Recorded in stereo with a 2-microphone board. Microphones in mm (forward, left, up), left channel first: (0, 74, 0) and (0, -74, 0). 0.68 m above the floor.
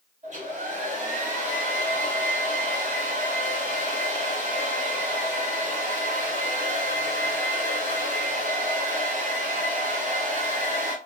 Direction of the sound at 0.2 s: 50° right (ahead or behind).